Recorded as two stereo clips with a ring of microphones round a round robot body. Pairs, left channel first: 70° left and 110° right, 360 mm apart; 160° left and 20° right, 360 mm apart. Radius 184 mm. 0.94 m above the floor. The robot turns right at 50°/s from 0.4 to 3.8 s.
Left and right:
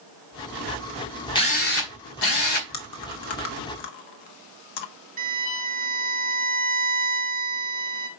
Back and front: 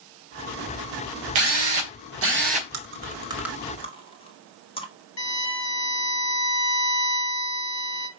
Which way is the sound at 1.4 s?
10° right.